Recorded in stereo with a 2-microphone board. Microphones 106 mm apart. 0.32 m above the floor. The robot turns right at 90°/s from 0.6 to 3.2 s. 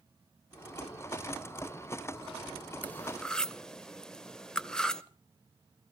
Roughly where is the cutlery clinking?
Centre.